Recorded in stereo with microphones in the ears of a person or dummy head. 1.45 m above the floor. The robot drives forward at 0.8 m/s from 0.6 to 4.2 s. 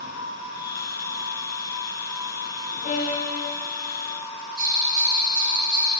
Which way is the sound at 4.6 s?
50° right (ahead or behind).